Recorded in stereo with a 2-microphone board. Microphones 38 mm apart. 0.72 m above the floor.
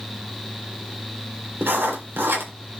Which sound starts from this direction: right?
Writing, at 1.6 s.